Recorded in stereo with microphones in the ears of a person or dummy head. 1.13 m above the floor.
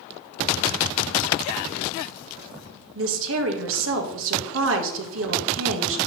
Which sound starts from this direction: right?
A woman speaking, at 3.0 s.